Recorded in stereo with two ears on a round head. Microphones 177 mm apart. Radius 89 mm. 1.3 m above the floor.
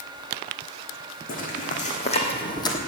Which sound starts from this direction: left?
Footsteps, at 1.3 s.